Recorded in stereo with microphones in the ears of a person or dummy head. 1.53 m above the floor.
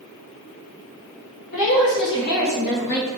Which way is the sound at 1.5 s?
70° left (ahead or behind).